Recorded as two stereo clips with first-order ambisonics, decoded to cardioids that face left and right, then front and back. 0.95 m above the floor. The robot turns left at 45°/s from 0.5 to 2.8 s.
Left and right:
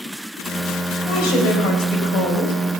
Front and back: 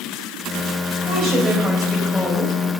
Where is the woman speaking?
130° left, 4.5 m; by 2.5 s 65° left, 4.5 m.